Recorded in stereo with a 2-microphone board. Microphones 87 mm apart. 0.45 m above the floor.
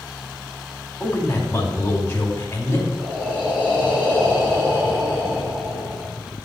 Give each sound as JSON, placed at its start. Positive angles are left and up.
{"t": 1.0, "sound": "a man speaking", "side_deg": 25, "distance_m": 2.5}
{"t": 3.0, "sound": "breathing", "side_deg": -25, "distance_m": 3.5}